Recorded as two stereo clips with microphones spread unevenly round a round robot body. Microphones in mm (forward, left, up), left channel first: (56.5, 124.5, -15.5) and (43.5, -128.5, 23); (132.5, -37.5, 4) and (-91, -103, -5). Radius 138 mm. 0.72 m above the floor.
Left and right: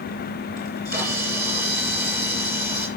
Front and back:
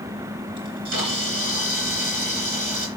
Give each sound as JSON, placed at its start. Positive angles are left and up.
{"t": 0.6, "sound": "a camera shutter", "azimuth_deg": 165, "distance_m": 3.5}